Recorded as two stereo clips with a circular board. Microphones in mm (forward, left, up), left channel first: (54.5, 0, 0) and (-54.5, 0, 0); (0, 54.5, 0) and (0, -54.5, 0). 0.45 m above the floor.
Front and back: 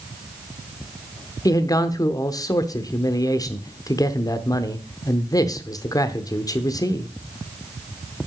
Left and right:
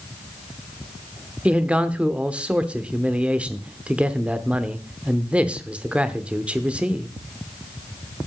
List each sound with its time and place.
1.4 s a man speaking: 20° right, 0.8 m